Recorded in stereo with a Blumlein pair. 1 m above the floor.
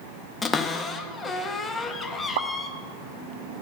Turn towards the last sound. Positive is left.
turn(degrees=-55)